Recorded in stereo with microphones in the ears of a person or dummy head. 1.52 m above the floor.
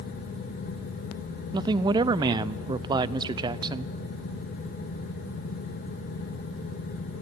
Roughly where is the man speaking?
Right.